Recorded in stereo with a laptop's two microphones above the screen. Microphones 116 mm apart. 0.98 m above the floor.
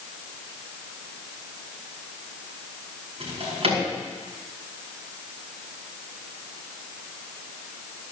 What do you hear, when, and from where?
3.2 s a drawer: 60° right (ahead or behind), 5 m